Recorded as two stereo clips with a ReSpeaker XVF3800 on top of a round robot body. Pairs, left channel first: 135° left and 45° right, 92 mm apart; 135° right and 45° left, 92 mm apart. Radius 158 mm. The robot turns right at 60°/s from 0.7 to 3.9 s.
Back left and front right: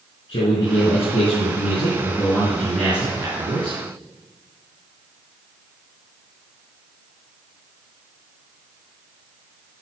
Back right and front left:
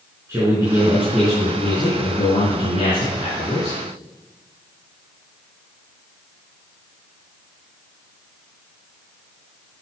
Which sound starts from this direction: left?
A man speaking, at 0.3 s.